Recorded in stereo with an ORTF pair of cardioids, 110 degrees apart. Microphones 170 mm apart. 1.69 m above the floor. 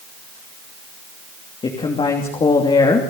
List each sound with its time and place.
1.6 s a woman speaking: 30° left, 3 m